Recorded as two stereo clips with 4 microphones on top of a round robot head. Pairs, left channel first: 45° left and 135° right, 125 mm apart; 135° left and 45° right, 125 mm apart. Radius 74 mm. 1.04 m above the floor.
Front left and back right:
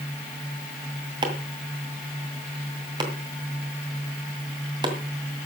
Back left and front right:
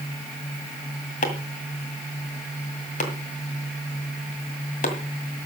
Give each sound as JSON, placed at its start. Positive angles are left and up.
{"t": 1.2, "sound": "chopping", "azimuth_deg": 170, "distance_m": 2.0}